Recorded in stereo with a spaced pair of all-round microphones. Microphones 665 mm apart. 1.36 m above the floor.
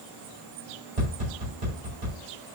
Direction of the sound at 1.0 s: 80° right.